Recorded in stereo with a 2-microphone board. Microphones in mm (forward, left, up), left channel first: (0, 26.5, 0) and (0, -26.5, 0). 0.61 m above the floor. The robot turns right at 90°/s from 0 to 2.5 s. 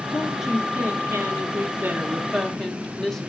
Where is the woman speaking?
155° left, 1.4 m; by 3.3 s 10° left, 1.4 m.